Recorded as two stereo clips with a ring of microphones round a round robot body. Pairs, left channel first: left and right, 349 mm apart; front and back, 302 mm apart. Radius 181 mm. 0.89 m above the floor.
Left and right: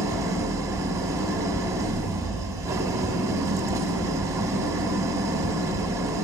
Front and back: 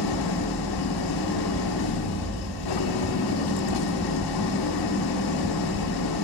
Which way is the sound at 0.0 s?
10° right.